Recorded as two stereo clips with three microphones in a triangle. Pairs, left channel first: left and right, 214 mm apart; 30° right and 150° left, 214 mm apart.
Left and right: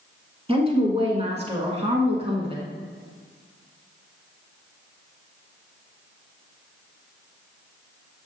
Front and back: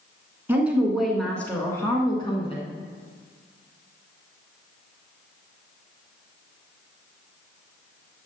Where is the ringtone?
No ringtone in this recording.